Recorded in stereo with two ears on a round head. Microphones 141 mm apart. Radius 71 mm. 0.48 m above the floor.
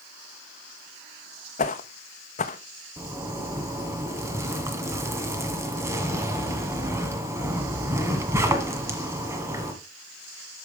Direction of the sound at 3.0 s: 20° right (ahead or behind).